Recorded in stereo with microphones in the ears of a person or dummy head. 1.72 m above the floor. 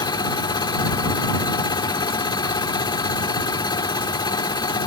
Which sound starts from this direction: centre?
A machine running, at 0.0 s.